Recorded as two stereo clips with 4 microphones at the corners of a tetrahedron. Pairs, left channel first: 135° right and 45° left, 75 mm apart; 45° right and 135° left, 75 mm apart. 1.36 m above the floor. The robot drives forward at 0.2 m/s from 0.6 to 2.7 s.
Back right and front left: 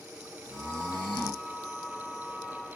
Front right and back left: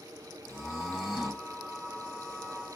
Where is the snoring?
45° left, 1.0 m; by 2.8 s 70° left, 0.8 m.